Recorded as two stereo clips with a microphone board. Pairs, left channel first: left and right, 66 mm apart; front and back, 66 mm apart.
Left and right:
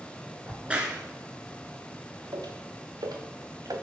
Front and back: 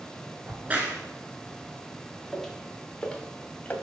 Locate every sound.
0.5 s a crack: 140° right, 1.6 m
2.3 s footsteps: 90° right, 2 m; by 3.7 s 65° right, 1.9 m